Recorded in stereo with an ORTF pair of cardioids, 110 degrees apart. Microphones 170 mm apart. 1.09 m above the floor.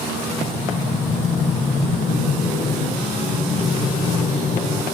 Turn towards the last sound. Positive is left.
turn(degrees=40)